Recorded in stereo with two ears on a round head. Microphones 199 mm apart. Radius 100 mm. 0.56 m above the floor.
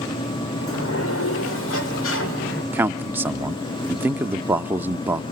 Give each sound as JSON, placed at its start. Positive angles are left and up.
{"t": 0.6, "sound": "a sliding door", "side_deg": 65, "distance_m": 2.0}
{"t": 2.7, "sound": "a man speaking", "side_deg": -10, "distance_m": 0.8}